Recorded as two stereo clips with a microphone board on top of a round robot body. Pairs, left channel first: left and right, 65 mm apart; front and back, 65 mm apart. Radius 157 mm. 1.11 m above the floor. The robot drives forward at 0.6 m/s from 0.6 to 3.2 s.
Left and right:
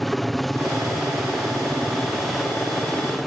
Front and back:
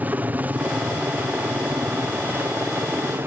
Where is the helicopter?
175° left; by 3.3 s straight behind.